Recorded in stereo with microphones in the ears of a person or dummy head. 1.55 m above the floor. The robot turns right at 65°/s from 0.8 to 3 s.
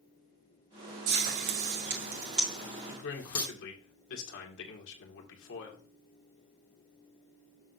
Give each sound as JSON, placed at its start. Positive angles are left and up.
{"t": 1.1, "sound": "frying", "side_deg": -50, "distance_m": 2.0}
{"t": 2.9, "sound": "a man speaking", "side_deg": 60, "distance_m": 2.0}